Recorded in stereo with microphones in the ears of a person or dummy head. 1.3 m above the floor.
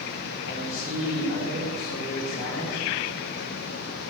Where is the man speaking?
70° left (ahead or behind), 5 m; by 2.8 s 85° left, 7.5 m.